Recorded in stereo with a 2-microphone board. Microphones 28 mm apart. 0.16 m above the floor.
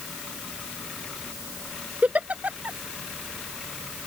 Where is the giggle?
60° right (ahead or behind).